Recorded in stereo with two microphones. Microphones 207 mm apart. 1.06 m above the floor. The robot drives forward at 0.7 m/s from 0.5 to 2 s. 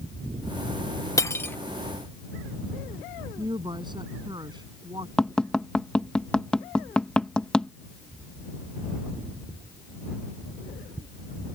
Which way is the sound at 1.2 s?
15° left (ahead or behind).